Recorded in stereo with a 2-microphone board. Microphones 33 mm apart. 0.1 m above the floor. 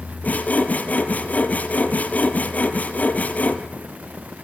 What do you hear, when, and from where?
0.2 s sawing: 55° left (ahead or behind), 1.9 m